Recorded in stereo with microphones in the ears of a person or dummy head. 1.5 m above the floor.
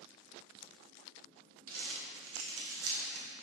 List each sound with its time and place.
1.7 s crumpling: 80° right, 1.5 m